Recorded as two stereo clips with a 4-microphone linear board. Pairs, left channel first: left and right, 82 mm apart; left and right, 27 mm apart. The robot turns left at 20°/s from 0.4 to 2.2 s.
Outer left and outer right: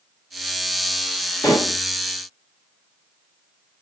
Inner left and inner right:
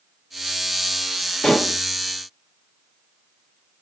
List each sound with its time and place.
1.4 s dishes clattering: 50° left (ahead or behind), 1.2 m; by 1.8 s 40° left (ahead or behind), 1.2 m